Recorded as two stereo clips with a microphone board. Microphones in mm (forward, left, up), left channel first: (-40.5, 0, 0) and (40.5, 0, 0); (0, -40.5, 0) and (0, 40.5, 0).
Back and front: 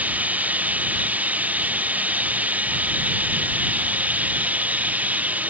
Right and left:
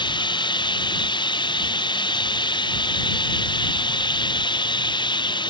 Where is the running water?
70° right.